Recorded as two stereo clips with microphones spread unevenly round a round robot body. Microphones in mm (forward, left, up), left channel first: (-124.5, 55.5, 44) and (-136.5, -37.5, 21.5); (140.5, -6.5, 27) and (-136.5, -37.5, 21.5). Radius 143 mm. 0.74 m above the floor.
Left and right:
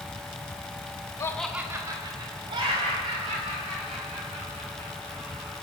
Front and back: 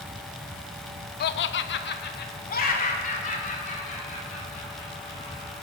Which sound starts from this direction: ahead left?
Laughter, at 1.2 s.